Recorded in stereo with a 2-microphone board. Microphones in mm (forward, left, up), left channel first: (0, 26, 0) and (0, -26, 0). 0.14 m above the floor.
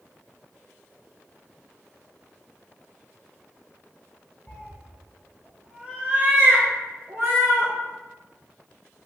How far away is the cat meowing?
About 1.4 m.